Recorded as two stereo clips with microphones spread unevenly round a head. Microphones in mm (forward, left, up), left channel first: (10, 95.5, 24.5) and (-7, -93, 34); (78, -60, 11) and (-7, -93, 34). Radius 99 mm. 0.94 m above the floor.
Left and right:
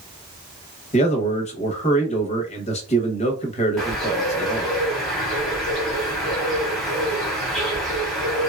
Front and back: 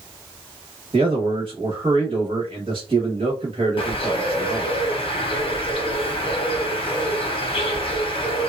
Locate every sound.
0.9 s a man speaking: 140° left, 0.9 m
3.8 s a bird: 5° right, 0.9 m